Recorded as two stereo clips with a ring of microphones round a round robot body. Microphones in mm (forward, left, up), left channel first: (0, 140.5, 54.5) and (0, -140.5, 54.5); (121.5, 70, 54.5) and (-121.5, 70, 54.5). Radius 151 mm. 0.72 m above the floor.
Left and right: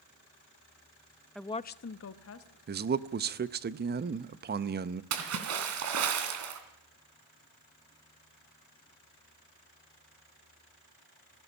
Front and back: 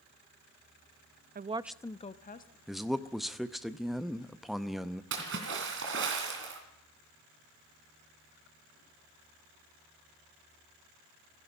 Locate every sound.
1.4 s a woman speaking: straight behind, 0.6 m; by 2.6 s 50° left, 1.3 m
2.7 s a man speaking: 90° right, 0.7 m
5.1 s a splash: 130° right, 2.5 m